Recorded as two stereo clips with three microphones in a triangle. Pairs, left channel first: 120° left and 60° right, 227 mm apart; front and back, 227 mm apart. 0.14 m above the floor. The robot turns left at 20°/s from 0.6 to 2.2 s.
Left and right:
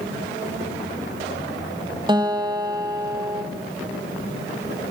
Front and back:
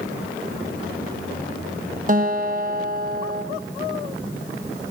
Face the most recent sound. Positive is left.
turn(degrees=-135)